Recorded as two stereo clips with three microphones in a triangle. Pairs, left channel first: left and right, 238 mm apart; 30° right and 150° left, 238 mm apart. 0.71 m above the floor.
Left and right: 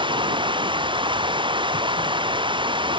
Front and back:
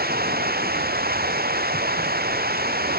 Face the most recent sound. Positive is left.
turn(degrees=-160)